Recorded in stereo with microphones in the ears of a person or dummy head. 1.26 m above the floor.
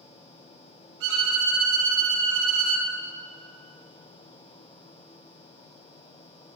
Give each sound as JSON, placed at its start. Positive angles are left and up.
{"t": 1.0, "sound": "a violin", "side_deg": -60, "distance_m": 2.5}